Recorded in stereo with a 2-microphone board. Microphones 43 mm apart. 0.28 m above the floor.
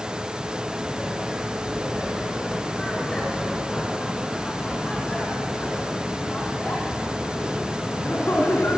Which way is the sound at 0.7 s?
Centre (ahead or behind).